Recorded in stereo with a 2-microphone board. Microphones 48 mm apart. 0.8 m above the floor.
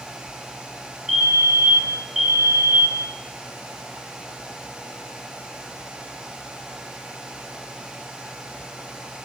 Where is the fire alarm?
10° right (ahead or behind), 7.5 m.